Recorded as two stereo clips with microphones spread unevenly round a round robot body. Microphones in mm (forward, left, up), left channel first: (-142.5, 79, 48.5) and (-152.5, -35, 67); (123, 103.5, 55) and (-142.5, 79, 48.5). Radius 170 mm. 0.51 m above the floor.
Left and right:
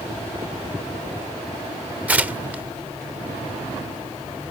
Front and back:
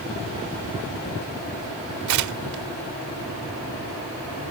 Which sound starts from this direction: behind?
Tearing paper, at 2.1 s.